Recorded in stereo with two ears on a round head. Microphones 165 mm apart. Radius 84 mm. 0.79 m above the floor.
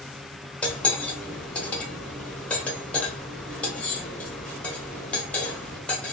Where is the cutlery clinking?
5° left (ahead or behind), 0.9 m.